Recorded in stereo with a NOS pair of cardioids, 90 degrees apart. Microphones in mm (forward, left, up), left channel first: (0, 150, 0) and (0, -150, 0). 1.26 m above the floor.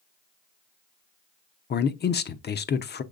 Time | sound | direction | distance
1.7 | a man speaking | 35° left | 0.6 m